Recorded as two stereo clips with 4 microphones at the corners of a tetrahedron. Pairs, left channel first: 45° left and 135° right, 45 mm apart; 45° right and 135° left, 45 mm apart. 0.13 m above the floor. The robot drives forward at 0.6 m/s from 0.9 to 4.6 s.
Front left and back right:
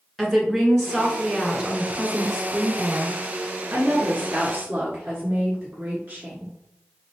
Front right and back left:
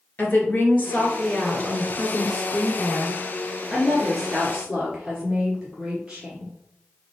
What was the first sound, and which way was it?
A woman speaking, 35° right.